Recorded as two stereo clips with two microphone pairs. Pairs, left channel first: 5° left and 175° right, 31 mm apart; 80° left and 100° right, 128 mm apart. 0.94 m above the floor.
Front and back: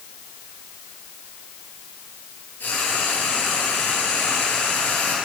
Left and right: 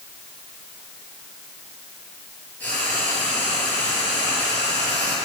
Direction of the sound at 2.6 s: 5° left.